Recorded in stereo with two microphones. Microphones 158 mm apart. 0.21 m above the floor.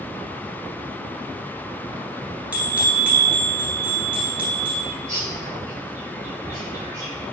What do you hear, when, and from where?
2.5 s a bell: 10° right (ahead or behind), 2.0 m
4.8 s a bird: 15° right (ahead or behind), 3.5 m